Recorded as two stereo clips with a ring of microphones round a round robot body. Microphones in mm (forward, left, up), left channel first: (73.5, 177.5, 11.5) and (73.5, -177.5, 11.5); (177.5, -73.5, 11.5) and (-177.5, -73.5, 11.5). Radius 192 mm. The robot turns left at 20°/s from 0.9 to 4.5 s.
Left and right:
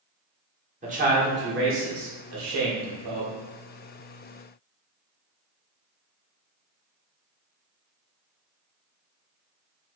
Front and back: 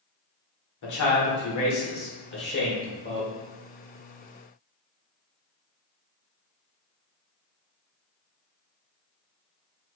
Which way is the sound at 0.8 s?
25° right.